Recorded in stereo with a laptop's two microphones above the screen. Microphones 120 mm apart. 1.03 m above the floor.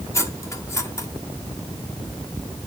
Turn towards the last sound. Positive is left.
turn(degrees=25)  # may be behind; listen again after turning